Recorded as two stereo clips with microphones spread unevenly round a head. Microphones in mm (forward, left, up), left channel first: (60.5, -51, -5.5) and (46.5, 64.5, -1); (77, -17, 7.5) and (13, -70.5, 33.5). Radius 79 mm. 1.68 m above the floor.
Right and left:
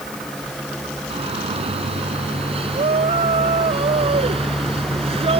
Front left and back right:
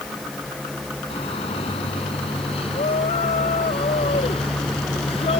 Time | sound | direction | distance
1.1 | a shout | 65° left | ?